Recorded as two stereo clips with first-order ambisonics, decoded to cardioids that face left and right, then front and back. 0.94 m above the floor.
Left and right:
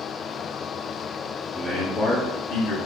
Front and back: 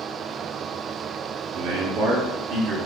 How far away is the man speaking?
About 1.5 m.